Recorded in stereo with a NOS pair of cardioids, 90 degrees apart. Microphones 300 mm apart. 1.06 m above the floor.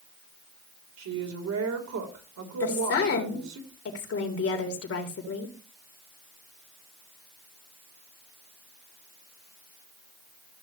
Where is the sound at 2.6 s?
50° left, 3.5 m.